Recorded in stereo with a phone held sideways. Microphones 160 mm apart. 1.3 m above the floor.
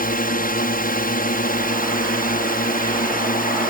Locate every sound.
0.0 s a drone: 60° left (ahead or behind)